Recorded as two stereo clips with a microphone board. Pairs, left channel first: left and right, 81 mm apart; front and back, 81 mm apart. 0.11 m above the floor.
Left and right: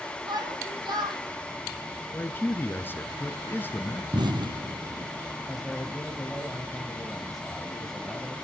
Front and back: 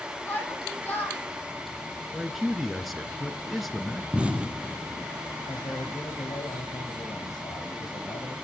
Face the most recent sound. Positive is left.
turn(degrees=0)